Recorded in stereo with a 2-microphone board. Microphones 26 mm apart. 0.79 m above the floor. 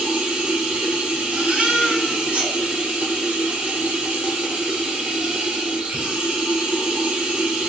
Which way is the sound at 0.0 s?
70° right (ahead or behind).